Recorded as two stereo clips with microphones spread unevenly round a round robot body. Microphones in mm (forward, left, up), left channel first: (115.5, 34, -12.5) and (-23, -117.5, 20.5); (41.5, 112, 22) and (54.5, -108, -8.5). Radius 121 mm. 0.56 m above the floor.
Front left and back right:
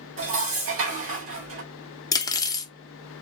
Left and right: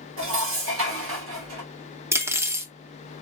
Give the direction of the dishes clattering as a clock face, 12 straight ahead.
4 o'clock.